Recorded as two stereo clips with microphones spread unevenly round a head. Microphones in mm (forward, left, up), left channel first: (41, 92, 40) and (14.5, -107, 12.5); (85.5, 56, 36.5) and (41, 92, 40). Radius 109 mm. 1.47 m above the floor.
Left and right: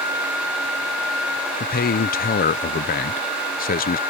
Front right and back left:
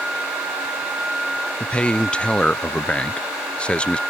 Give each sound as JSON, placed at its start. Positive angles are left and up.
{"t": 1.6, "sound": "a man speaking", "azimuth_deg": 35}